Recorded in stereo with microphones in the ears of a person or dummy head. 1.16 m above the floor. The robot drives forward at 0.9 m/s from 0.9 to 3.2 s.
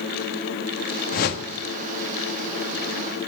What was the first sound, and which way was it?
A whoosh, 50° left (ahead or behind).